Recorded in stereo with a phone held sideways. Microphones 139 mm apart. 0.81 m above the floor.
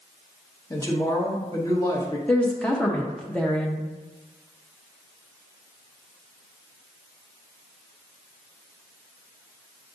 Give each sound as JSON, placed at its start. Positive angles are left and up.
{"t": 0.7, "sound": "a woman speaking", "side_deg": 20, "distance_m": 0.8}
{"t": 2.3, "sound": "a woman speaking", "side_deg": 10, "distance_m": 0.6}